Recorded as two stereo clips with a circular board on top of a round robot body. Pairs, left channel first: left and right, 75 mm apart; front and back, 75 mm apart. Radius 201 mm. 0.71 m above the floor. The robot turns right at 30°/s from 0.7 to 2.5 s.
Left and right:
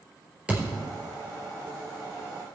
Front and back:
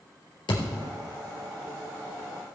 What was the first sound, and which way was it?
A thud, 15° right.